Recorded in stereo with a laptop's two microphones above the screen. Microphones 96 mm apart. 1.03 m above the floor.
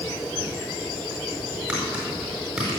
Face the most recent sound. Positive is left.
turn(degrees=-15)  # may be behind; listen again after turning